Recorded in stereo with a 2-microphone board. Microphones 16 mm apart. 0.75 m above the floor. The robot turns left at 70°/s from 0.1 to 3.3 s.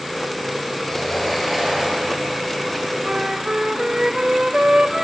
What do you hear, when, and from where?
0.8 s a sliding door: 35° left, 9 m; by 2.3 s 65° right, 9 m
3.0 s a flute: 45° right (ahead or behind), 1.1 m; by 5.0 s 50° right (ahead or behind), 1.1 m